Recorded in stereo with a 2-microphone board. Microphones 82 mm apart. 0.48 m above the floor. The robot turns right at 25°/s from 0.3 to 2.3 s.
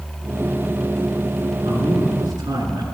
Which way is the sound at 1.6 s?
65° right (ahead or behind).